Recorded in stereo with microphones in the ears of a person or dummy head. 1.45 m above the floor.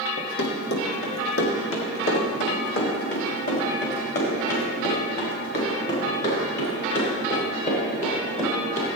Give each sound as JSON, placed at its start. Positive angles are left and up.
{"t": 0.2, "sound": "running footsteps", "side_deg": 55, "distance_m": 2.5}